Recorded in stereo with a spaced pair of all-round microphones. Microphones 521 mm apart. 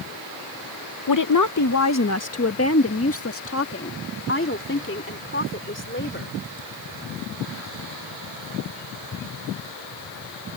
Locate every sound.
1.1 s a woman speaking: 40° left (ahead or behind); by 6.4 s 20° left (ahead or behind)